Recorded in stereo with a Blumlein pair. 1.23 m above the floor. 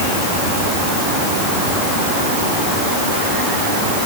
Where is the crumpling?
No crumpling in this recording.